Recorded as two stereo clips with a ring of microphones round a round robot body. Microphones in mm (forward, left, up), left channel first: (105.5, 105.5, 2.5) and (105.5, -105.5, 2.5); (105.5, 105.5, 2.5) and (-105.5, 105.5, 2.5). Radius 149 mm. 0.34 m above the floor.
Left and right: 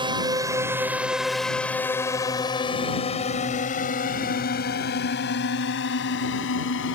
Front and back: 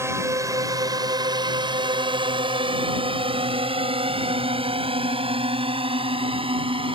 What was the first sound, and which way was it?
A drone, 120° right.